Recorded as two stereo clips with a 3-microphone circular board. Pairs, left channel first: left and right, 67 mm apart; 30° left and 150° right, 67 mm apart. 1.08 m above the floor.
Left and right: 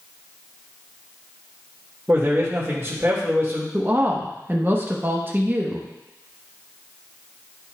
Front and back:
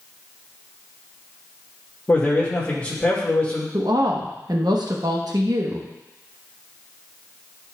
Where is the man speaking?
35° right, 1.7 m.